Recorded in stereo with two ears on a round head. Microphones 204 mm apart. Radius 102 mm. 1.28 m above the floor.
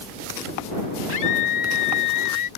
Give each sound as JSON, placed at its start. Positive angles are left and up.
{"t": 1.1, "sound": "a scream", "side_deg": 60}